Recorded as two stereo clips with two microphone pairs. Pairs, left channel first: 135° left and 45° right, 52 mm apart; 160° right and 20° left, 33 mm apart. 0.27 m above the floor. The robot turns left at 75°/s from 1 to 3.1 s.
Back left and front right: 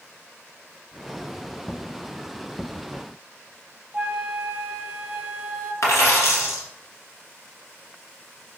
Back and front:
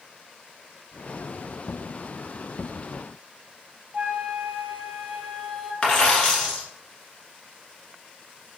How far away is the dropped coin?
About 1.5 m.